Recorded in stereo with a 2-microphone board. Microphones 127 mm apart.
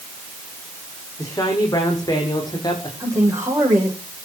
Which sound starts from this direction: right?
A man speaking, at 3.0 s.